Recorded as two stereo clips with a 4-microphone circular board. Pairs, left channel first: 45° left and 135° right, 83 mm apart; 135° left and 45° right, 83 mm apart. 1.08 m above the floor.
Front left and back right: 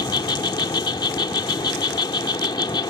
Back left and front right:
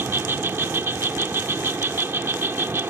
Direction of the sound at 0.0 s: 15° left.